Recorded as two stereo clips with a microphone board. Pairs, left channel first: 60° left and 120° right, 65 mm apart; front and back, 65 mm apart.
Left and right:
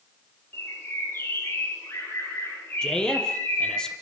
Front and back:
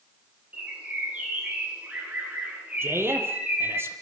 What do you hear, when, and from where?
0.5 s a bird: 110° left, 6 m
2.8 s a man speaking: 135° left, 3.5 m